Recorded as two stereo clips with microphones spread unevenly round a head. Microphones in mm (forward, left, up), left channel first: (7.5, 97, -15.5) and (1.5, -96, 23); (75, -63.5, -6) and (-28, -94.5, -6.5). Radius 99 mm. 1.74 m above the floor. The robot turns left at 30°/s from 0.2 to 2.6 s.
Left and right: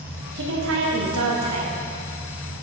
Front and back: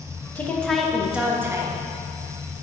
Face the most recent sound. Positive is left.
turn(degrees=-125)